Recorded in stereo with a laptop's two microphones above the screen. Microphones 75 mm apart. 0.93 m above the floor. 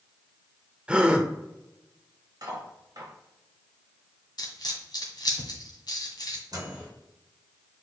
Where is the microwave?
60° right (ahead or behind), 3 m.